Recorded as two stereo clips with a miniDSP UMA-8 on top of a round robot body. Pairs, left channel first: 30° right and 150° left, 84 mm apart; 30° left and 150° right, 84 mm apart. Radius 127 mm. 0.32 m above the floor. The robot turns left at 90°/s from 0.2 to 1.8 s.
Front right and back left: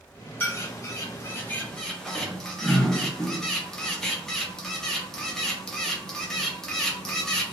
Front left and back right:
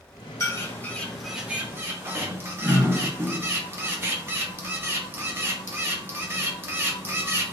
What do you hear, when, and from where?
0.4 s a bird: 15° left, 0.9 m; by 7.5 s 110° right, 0.9 m